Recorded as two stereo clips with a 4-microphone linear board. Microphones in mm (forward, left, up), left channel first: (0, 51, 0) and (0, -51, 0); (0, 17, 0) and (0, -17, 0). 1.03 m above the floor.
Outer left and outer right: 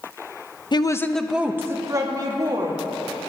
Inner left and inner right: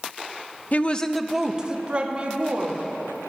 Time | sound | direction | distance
0.7 | a woman speaking | 45° left (ahead or behind) | 0.5 m